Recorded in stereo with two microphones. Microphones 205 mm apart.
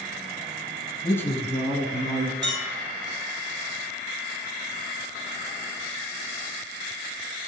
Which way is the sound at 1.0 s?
20° left (ahead or behind).